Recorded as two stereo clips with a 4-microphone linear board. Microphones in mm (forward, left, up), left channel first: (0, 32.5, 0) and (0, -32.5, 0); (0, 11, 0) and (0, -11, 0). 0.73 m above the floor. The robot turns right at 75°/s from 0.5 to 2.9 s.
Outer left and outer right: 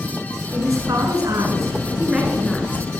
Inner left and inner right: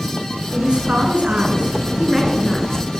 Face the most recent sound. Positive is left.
turn(degrees=40)